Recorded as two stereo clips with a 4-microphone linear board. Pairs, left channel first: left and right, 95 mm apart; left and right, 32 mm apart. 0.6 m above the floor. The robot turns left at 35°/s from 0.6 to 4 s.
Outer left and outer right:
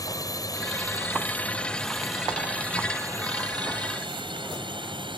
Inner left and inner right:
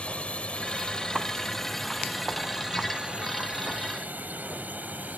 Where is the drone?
40° left (ahead or behind); by 5.2 s 60° right (ahead or behind).